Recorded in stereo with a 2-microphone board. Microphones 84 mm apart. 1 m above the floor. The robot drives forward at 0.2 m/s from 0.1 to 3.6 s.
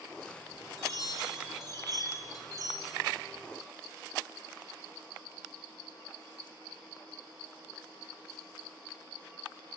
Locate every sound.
0.8 s a chime: 50° right (ahead or behind), 3.5 m; by 3.0 s 45° right (ahead or behind), 4 m